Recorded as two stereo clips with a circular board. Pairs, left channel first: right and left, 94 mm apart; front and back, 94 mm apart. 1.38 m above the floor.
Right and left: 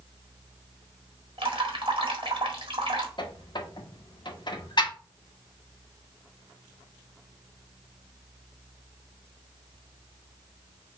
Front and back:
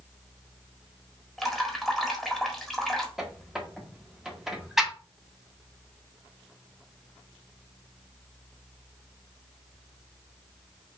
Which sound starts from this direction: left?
Dripping, at 1.4 s.